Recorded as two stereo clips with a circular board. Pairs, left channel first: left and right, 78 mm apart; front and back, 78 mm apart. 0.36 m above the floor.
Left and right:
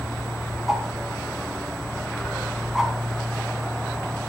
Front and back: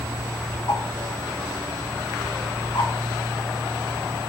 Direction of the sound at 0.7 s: 5° right.